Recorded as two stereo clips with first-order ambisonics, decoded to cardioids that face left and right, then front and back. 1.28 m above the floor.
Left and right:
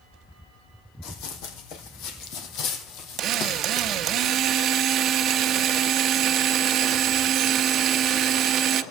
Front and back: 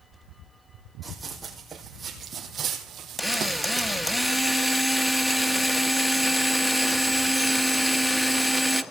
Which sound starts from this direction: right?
A drill, at 3.2 s.